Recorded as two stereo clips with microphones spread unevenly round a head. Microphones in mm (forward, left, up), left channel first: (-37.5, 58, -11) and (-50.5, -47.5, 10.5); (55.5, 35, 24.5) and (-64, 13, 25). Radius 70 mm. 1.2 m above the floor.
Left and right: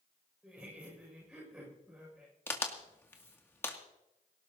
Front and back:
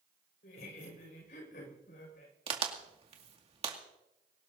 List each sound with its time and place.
0.4 s laughter: 10° right, 6 m
2.5 s a crack: 150° left, 2 m